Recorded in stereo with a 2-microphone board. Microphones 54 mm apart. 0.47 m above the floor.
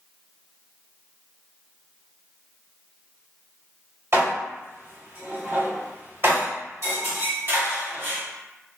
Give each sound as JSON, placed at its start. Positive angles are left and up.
{"t": 4.1, "sound": "dishes clattering", "side_deg": -55, "distance_m": 1.2}